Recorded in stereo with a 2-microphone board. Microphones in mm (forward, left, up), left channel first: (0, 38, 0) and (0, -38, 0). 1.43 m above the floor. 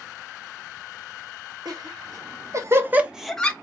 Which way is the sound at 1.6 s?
65° right (ahead or behind).